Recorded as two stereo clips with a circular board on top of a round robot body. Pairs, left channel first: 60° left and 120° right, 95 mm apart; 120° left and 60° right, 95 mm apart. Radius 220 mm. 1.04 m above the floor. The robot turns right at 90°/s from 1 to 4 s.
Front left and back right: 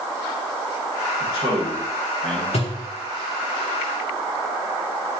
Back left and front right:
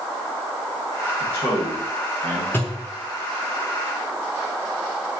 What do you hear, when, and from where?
1.2 s a man speaking: straight behind, 2.5 m; by 2.4 s 70° right, 2.5 m
2.5 s a thud: 50° left, 0.6 m; by 2.9 s 80° left, 0.6 m